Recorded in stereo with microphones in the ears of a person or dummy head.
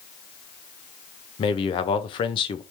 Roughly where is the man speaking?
Left.